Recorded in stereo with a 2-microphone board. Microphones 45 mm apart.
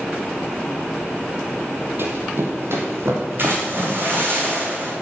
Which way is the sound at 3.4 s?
50° right (ahead or behind).